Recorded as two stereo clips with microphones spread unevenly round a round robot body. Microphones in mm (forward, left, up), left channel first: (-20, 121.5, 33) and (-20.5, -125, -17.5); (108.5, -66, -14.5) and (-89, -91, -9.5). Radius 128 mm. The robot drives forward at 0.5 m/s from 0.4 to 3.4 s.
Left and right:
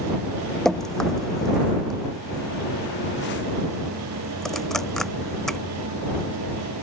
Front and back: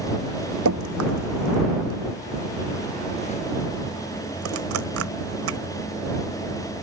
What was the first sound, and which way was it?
Dripping, straight behind.